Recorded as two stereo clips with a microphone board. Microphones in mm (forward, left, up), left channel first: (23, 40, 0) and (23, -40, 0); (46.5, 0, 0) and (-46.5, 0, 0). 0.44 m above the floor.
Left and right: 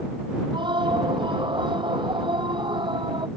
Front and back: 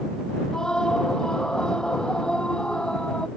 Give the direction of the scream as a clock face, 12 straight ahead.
3 o'clock.